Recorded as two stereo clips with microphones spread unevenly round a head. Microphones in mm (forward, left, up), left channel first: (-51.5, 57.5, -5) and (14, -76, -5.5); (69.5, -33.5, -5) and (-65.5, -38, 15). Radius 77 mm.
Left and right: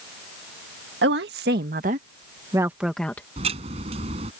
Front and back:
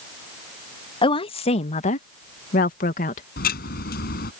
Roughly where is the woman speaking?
Ahead right.